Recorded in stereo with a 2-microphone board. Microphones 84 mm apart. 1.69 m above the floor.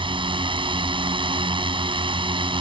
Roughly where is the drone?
Right.